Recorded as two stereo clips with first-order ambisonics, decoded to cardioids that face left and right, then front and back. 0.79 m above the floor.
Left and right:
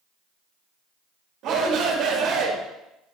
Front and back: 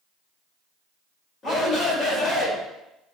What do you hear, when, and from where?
1.4 s a shout: 60° right, 1.5 m